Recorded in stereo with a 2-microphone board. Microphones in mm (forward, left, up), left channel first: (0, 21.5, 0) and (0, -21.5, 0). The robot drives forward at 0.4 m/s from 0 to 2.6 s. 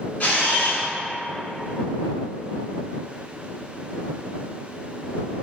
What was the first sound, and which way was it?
A camera shutter, 50° left (ahead or behind).